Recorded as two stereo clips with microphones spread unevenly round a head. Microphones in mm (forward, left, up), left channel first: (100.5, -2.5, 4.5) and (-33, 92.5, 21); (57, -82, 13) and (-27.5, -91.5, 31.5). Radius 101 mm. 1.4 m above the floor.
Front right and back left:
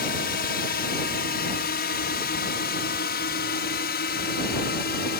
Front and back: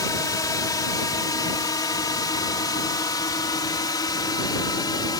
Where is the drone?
30° right; by 5.2 s 25° right.